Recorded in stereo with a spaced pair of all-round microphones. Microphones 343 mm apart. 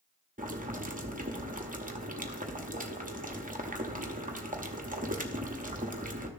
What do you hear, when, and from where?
0.4 s boiling: 25° right (ahead or behind), 1.0 m